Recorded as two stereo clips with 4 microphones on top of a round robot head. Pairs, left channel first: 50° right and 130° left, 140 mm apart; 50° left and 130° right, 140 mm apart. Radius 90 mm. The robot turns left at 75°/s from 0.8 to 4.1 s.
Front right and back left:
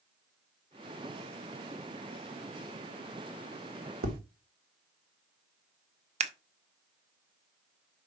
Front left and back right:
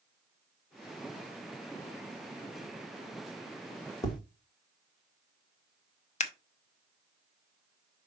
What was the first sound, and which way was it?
Tapping, 115° left.